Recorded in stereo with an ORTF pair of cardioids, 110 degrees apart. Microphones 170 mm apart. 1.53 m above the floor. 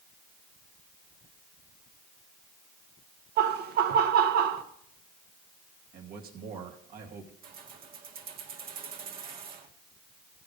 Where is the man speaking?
60° right, 2.5 m.